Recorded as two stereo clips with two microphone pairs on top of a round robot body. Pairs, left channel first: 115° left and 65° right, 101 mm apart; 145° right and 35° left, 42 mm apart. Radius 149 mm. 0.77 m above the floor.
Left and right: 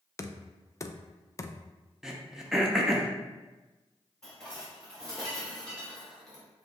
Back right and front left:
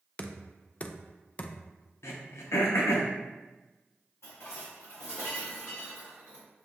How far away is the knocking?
About 0.5 m.